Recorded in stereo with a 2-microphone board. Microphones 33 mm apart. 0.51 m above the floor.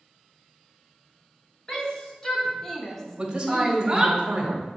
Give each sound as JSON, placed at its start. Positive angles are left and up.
{"t": 1.7, "sound": "a shout", "side_deg": 20, "distance_m": 2.5}
{"t": 3.2, "sound": "a man speaking", "side_deg": -25, "distance_m": 1.9}